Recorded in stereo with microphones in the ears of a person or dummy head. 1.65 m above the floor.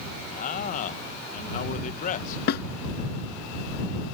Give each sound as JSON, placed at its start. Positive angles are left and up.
{"t": 0.3, "sound": "a man speaking", "side_deg": 50}
{"t": 2.5, "sound": "a snare drum", "side_deg": 60}